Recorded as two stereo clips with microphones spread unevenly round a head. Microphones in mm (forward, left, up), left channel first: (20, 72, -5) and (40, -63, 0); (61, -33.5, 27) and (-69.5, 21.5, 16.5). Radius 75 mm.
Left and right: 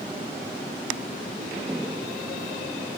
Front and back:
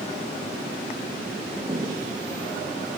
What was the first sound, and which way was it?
Footsteps, 150° right.